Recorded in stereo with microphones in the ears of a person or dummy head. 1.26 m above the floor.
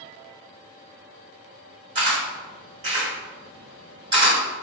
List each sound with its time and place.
1.9 s a camera shutter: 30° right (ahead or behind), 1.5 m